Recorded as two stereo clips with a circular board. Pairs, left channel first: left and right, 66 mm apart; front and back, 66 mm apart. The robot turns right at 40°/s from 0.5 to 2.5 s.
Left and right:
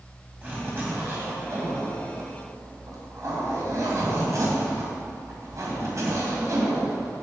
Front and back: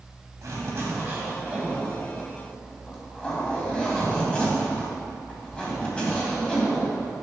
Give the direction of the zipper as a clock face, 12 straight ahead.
5 o'clock.